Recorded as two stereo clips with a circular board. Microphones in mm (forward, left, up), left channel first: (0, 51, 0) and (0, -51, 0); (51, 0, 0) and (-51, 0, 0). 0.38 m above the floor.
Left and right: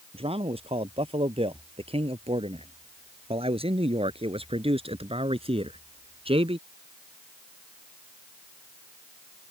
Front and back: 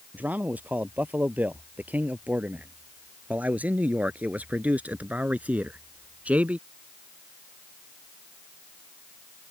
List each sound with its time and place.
0.1 s a man speaking: 105° right